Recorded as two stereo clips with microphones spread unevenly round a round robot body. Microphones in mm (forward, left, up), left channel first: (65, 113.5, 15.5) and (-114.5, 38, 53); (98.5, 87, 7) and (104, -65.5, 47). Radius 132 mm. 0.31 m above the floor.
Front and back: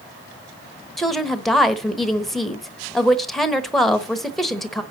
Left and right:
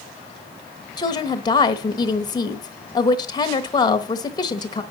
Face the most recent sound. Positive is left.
turn(degrees=95)